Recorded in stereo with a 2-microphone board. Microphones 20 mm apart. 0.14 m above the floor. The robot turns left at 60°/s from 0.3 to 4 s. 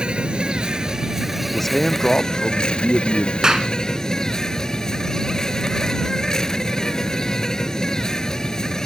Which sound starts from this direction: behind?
A man speaking, at 1.5 s.